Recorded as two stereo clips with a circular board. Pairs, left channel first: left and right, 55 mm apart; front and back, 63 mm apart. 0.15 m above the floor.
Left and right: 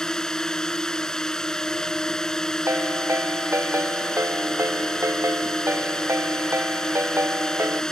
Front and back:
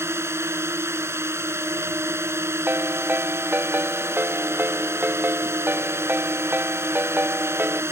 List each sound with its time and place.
0.0 s a drone: 165° left
2.7 s a ringtone: 125° right